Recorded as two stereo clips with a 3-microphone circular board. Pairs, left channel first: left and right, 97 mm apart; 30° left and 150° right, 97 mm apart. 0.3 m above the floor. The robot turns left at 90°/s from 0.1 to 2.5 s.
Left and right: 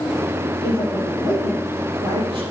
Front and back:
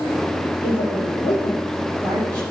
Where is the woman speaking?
55° left, 5.5 m; by 2.4 s 105° right, 5.5 m.